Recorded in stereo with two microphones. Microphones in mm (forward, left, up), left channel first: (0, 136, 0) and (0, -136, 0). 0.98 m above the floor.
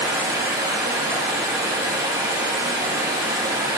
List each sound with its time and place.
0.0 s running water: 15° right (ahead or behind), 3.5 m